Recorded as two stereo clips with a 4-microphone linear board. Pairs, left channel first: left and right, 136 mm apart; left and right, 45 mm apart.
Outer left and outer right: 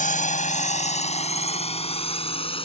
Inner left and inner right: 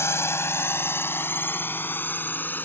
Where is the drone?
65° left (ahead or behind); by 2.7 s 40° left (ahead or behind).